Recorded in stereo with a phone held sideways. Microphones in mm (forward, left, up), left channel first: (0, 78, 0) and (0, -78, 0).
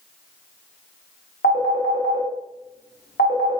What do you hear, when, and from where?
1.4 s a phone ringing: 85° left, 0.9 m